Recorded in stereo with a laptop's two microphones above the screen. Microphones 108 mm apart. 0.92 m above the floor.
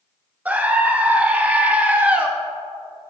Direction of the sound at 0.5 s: 15° right (ahead or behind).